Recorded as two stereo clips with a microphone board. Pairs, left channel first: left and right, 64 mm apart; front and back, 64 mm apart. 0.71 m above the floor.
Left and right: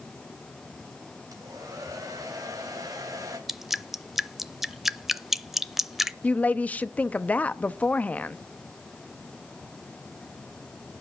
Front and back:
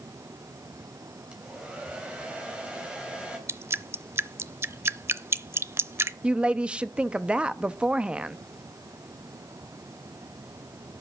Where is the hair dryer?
105° right, 3.5 m.